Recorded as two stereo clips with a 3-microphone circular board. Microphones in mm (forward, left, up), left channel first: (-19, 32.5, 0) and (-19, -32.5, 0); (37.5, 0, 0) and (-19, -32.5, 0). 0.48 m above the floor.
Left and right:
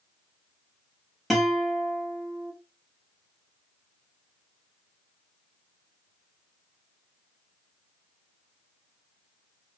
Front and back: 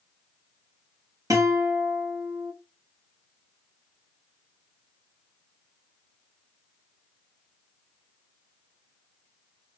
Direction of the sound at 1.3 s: Straight behind.